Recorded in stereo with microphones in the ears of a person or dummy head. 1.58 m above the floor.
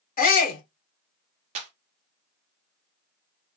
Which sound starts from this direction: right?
A clap, at 1.6 s.